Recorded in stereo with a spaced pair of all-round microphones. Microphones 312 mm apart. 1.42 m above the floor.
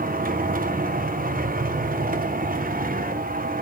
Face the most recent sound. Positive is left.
turn(degrees=-30)  # may be behind; listen again after turning